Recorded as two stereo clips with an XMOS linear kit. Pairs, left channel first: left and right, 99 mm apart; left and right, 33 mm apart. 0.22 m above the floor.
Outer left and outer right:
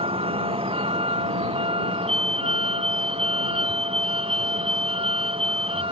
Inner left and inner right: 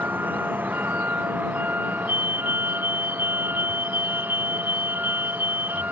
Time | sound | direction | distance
0.0 | a vehicle | 65° right (ahead or behind) | ?
2.1 | a fire alarm | 70° right (ahead or behind) | ?